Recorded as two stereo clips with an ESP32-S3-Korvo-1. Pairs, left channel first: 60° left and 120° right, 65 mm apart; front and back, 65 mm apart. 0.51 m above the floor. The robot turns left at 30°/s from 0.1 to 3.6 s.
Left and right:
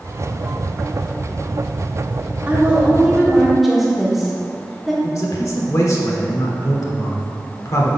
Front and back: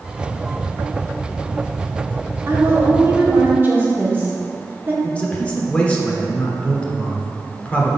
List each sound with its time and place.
2.5 s a woman speaking: 170° right, 1.3 m; by 4.9 s 155° left, 1.3 m
5.0 s a man speaking: 65° left, 1.1 m